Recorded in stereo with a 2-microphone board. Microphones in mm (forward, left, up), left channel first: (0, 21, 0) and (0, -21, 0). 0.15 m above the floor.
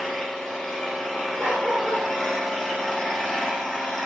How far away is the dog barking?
About 1.3 m.